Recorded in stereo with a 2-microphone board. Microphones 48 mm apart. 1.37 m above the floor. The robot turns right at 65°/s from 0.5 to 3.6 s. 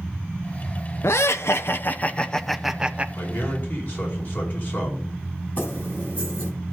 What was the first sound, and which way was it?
Laughter, 80° left.